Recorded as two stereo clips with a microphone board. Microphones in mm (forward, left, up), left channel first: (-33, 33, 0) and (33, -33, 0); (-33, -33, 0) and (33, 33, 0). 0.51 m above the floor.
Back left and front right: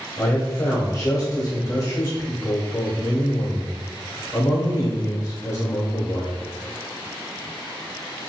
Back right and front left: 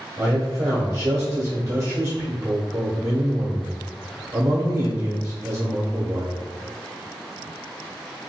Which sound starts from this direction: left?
A man speaking, at 0.2 s.